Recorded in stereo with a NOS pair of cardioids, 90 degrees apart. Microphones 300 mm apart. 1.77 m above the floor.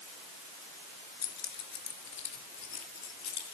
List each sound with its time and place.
1.2 s keys jangling: 60° left, 3 m; by 3.5 s 65° left, 4.5 m